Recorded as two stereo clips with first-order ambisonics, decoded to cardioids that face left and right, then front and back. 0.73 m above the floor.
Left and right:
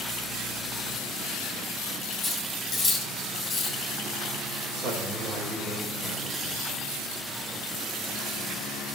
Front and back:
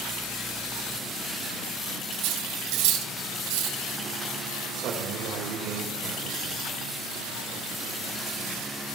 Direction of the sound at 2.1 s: 175° left.